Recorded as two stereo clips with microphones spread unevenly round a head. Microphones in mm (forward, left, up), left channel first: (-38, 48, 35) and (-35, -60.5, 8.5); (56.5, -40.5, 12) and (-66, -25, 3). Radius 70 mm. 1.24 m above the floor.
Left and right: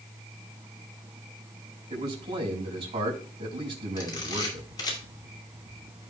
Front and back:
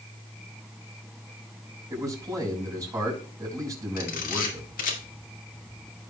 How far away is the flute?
I don't hear a flute.